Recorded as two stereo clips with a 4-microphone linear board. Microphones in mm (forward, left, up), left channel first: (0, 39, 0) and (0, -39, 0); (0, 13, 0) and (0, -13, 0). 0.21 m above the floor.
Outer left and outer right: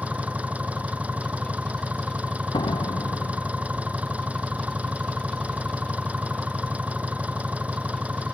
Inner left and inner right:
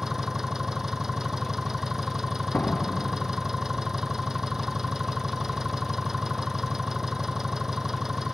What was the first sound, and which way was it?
An engine running, 20° right (ahead or behind).